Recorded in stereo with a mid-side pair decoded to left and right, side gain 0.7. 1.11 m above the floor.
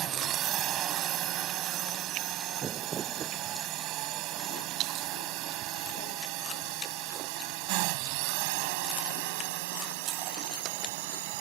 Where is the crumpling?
35° right.